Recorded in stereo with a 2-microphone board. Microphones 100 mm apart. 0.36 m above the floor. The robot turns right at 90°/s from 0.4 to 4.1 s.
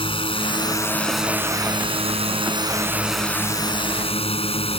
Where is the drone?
110° left; by 4.8 s 85° left.